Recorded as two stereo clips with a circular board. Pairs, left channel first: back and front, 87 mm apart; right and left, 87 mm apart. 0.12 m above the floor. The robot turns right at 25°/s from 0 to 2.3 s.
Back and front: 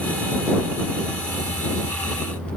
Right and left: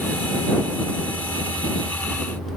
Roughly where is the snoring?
I don't hear snoring.